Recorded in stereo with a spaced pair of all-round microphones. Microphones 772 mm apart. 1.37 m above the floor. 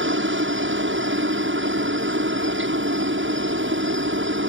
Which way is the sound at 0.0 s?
15° right (ahead or behind).